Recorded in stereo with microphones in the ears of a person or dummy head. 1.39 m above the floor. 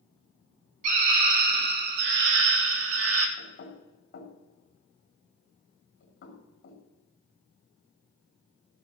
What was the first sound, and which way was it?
A scream, 50° right (ahead or behind).